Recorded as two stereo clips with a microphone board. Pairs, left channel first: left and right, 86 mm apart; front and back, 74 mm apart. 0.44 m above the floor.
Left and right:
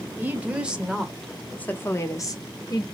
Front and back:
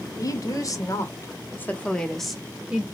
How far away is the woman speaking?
About 1.6 m.